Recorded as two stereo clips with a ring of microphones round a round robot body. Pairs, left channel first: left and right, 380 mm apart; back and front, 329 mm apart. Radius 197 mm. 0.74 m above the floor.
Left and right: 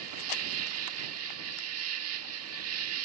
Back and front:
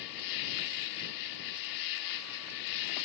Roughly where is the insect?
Behind right.